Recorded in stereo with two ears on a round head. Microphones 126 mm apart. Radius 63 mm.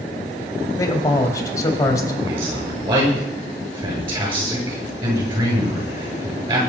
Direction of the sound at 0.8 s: 25° left (ahead or behind).